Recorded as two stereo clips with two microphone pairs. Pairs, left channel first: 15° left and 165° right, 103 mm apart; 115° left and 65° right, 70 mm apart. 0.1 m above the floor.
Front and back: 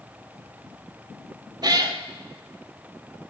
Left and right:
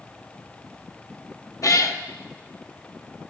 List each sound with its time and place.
1.6 s a cat meowing: 150° left, 0.8 m